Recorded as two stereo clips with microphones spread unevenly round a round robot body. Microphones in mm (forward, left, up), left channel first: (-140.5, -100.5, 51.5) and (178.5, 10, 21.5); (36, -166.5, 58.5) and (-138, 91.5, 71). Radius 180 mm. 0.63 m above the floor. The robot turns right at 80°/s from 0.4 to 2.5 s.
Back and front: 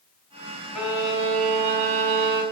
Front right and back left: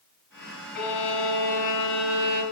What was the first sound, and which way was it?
A violin, 70° right.